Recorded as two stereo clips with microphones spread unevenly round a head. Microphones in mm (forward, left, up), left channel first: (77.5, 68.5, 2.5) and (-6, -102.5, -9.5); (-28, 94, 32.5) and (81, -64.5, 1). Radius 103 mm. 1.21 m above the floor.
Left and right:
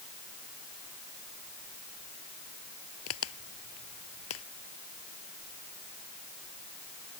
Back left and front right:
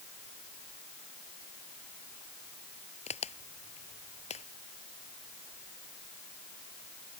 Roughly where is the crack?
Left.